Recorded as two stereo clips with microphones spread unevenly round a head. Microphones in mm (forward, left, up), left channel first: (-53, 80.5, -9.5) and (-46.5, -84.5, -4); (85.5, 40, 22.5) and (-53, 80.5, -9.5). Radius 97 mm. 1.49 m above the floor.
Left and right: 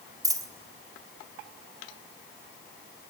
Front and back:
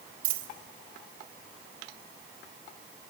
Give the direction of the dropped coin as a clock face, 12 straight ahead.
5 o'clock.